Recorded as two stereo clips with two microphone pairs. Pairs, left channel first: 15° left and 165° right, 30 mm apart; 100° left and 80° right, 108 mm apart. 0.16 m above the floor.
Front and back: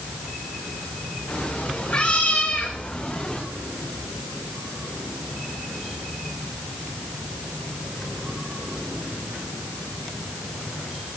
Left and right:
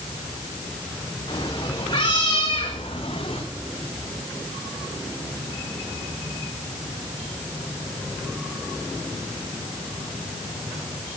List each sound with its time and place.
1.3 s a cat meowing: 50° left, 6 m; by 3.4 s 75° left, 5.5 m